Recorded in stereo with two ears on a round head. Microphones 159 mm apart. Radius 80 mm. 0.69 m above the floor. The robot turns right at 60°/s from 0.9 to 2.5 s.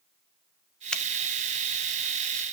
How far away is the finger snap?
About 0.8 m.